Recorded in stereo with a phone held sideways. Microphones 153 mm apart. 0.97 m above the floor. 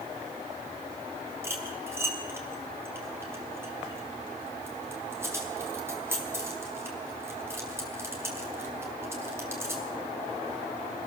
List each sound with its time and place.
1.4 s cutlery clinking: 15° right (ahead or behind), 4.5 m